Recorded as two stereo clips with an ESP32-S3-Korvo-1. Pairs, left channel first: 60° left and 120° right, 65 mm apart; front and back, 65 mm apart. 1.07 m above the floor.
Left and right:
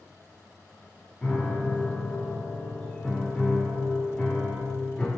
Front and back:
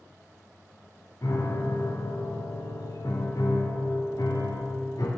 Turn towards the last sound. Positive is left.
turn(degrees=-15)